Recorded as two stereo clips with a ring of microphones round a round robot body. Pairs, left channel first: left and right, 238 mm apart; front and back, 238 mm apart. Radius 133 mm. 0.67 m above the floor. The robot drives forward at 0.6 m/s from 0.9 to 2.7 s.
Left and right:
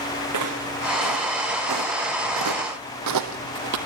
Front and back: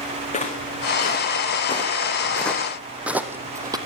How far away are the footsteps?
About 4 m.